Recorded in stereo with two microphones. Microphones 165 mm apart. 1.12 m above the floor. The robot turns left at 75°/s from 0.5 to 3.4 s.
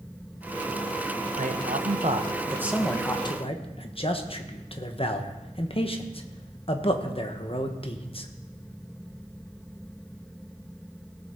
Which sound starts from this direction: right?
A man speaking, at 1.4 s.